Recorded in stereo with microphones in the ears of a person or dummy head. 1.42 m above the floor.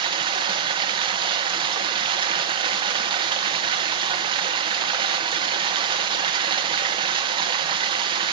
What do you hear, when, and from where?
0.0 s running water: 30° right (ahead or behind), 0.7 m